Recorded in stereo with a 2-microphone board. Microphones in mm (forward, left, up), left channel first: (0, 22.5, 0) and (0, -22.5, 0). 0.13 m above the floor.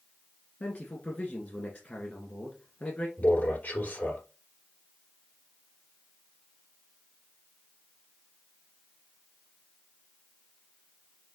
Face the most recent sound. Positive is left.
turn(degrees=50)  # may be behind; listen again after turning